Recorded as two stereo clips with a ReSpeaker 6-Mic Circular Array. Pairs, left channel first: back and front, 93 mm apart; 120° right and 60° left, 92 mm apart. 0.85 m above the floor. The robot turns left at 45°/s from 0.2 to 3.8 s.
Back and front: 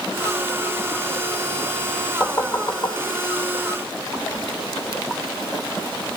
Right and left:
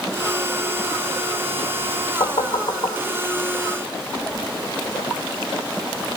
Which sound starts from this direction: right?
Knocking, at 2.2 s.